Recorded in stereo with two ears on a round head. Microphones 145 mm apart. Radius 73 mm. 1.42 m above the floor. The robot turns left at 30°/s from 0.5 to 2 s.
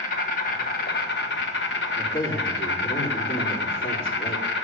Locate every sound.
0.0 s an insect: 120° left, 1.2 m; by 4.6 s 75° left, 1.2 m
1.9 s a man speaking: 80° left, 4 m